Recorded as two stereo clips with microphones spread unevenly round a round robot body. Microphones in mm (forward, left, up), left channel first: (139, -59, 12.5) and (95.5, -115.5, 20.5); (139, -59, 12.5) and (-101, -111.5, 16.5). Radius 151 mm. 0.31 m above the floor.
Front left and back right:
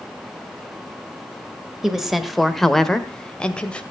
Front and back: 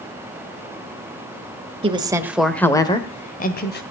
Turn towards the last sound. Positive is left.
turn(degrees=-10)